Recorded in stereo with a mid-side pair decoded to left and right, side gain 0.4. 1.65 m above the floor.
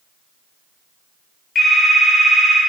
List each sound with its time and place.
1.6 s a phone ringing: 55° left, 2 m